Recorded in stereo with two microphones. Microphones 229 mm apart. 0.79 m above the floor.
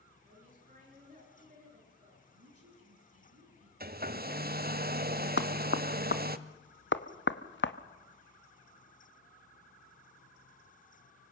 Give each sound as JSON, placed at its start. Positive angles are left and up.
{"t": 0.2, "sound": "a woman speaking", "side_deg": -35, "distance_m": 10.0}
{"t": 2.3, "sound": "a woman speaking", "side_deg": -75, "distance_m": 7.0}
{"t": 3.8, "sound": "a hair dryer", "side_deg": -40, "distance_m": 0.9}
{"t": 5.4, "sound": "knocking", "side_deg": 50, "distance_m": 1.0}